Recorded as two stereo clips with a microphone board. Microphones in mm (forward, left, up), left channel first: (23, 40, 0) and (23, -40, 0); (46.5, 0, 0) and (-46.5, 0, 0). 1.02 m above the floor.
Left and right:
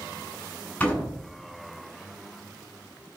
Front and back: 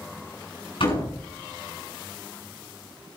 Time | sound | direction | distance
0.8 | a door slam | 15° left | 7.5 m